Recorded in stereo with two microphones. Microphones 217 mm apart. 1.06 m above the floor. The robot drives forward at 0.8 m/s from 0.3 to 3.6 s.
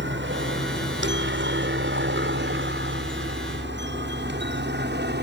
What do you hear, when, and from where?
0.0 s a helicopter: 60° right (ahead or behind); by 5.2 s 50° right (ahead or behind)